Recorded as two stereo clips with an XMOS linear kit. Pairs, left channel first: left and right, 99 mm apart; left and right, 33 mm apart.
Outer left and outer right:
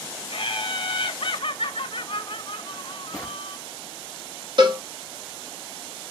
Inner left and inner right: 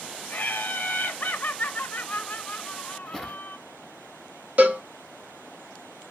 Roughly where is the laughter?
Left.